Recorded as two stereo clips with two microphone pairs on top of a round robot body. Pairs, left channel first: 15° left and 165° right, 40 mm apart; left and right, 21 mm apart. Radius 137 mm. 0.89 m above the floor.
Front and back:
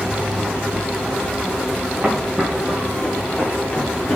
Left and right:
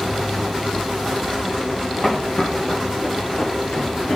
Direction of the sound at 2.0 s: 130° left.